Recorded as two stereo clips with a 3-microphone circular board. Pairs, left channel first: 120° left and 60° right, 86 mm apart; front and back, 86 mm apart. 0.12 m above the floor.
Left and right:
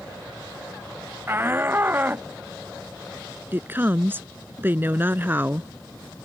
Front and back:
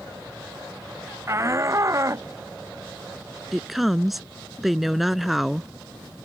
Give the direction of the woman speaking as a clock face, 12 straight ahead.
3 o'clock.